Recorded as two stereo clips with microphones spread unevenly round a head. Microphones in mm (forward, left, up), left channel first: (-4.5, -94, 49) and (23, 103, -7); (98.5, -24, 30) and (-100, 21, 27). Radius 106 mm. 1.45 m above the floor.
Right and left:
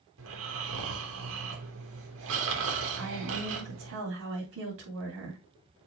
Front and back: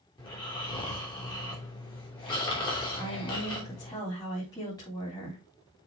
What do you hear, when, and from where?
0.2 s snoring: 55° left, 3 m
3.0 s a woman speaking: 60° left, 3.5 m